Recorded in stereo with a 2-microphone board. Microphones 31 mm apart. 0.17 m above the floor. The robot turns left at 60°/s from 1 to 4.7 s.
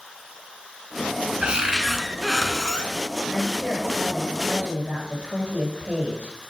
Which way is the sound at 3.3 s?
40° right.